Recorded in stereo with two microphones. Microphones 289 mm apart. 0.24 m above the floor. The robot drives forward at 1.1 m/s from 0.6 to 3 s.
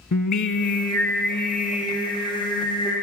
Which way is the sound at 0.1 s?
75° left (ahead or behind).